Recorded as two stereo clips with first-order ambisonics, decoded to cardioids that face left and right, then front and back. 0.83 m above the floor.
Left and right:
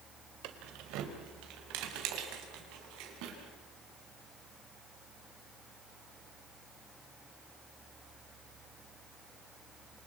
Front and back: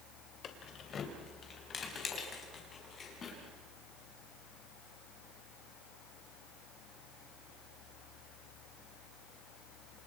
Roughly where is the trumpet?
No trumpet in this recording.